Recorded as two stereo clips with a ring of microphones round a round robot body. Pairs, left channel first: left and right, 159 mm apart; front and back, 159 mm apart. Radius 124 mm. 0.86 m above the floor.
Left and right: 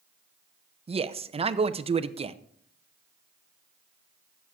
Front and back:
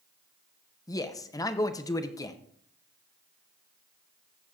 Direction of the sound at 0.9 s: 60° right.